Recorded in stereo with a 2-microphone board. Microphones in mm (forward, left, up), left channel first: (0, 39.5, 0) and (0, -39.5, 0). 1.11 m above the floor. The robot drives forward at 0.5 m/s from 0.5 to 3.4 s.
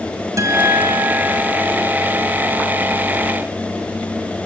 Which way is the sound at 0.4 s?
45° right (ahead or behind).